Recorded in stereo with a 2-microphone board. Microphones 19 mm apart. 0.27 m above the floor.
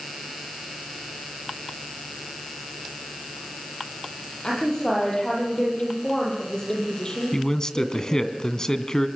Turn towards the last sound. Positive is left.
turn(degrees=30)  # may be behind; listen again after turning